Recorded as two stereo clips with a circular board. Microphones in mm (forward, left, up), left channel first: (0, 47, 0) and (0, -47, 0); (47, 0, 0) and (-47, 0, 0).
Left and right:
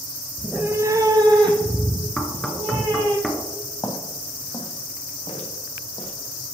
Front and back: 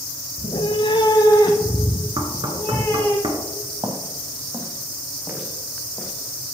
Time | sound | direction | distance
0.4 | a cat meowing | straight ahead | 0.6 m
2.2 | knocking | straight behind | 1.2 m
3.8 | footsteps | 140° left | 2 m